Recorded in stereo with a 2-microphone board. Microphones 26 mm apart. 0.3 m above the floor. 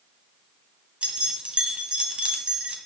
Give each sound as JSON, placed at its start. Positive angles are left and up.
{"t": 1.0, "sound": "keys jangling", "side_deg": -50, "distance_m": 1.2}